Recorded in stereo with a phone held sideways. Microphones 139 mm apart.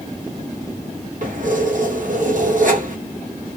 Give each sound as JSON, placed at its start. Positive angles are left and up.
{"t": 1.2, "sound": "keys jangling", "side_deg": -65, "distance_m": 1.3}